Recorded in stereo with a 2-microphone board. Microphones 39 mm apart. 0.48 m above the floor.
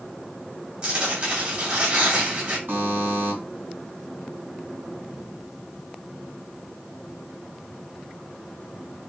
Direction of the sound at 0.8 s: 35° right (ahead or behind).